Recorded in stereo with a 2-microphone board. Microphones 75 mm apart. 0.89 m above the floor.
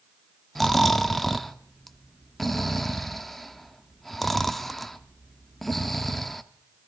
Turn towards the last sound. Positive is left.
turn(degrees=5)  # may be behind; listen again after turning